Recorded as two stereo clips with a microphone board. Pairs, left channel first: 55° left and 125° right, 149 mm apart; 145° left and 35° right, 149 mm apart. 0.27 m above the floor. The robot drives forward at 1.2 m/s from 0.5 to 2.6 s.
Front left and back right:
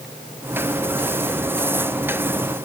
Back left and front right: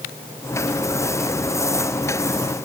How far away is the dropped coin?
No dropped coin in this recording.